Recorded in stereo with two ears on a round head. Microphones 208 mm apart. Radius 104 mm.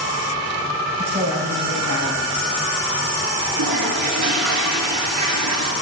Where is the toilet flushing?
75° right (ahead or behind), 2.0 m.